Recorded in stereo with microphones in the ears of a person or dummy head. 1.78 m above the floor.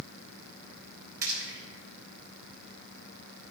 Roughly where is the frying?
Right.